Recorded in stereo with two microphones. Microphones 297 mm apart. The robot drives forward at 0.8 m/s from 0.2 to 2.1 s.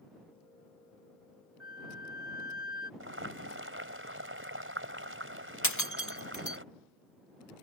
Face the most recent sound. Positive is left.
turn(degrees=70)  # may be behind; listen again after turning